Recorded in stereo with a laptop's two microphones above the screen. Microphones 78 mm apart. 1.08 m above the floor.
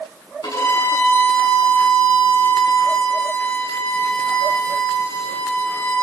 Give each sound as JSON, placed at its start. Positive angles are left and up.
{"t": 0.4, "sound": "a violin", "side_deg": 60, "distance_m": 8.5}